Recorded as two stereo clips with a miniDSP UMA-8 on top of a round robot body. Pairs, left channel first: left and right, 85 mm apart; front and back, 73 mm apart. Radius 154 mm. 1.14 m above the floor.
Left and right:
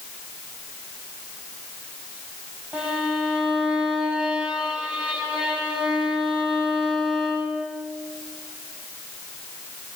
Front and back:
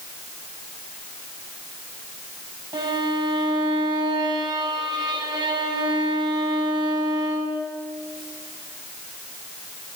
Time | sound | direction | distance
2.7 | a violin | 165° right | 8 m